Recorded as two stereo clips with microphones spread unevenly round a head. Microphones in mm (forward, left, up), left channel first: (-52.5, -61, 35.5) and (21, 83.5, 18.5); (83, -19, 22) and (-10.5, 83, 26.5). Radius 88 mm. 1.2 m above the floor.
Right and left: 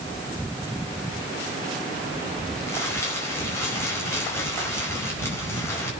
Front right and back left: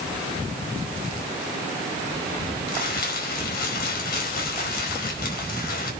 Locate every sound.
2.7 s crumpling: 40° right, 5 m